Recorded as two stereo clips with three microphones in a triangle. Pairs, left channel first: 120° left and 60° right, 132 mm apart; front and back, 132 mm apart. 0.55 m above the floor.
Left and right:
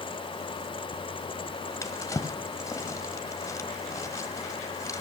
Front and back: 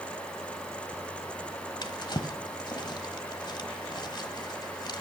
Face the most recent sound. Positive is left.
turn(degrees=55)